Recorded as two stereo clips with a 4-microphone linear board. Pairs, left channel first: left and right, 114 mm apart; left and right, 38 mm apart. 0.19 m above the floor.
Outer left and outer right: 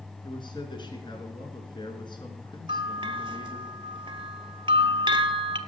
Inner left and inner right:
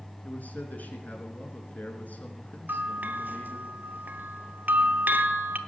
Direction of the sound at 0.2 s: 45° left (ahead or behind).